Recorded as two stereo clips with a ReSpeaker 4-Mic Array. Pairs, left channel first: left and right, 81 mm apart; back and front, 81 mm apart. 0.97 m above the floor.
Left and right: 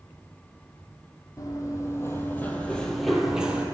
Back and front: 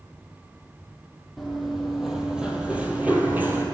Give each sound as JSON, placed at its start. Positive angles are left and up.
{"t": 1.4, "sound": "running footsteps", "azimuth_deg": 90, "distance_m": 1.3}